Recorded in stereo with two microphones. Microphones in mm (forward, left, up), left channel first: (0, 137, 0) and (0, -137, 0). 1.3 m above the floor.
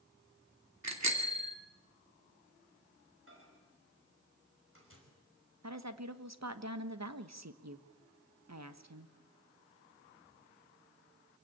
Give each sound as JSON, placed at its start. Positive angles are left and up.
{"t": 0.8, "sound": "a bicycle bell", "side_deg": -75, "distance_m": 2.5}
{"t": 3.3, "sound": "a microwave", "side_deg": -50, "distance_m": 5.5}
{"t": 5.6, "sound": "a woman speaking", "side_deg": -70, "distance_m": 1.3}